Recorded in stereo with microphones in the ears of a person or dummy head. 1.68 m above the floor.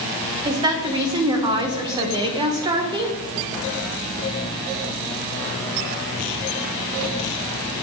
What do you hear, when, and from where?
0.5 s a woman speaking: 20° right (ahead or behind), 1.2 m